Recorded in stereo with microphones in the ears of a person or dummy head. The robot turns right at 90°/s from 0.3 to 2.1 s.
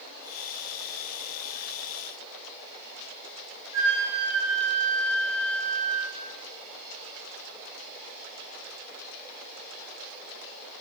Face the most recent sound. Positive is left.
turn(degrees=-25)  # may be behind; listen again after turning